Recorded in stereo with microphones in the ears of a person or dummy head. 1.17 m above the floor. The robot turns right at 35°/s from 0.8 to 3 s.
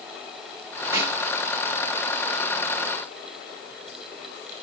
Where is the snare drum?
15° right (ahead or behind), 2 m; by 1.2 s 25° right (ahead or behind), 2 m.